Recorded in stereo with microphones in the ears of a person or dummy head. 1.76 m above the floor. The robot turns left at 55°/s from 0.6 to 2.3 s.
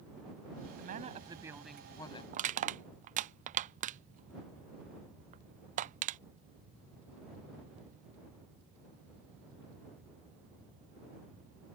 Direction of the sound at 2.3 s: 40° right (ahead or behind).